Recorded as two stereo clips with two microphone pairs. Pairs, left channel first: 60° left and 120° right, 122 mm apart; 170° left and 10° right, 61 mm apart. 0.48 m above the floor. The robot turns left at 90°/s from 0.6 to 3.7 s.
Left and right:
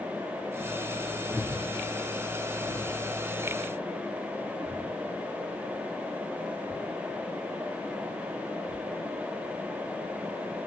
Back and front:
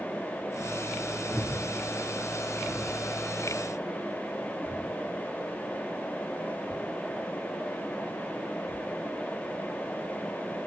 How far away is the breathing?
About 1.0 m.